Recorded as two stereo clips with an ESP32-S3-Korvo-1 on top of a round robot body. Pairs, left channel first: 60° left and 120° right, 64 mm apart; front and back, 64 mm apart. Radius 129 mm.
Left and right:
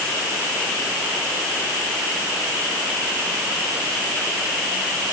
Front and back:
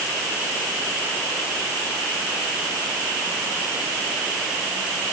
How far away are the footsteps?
No footsteps in this recording.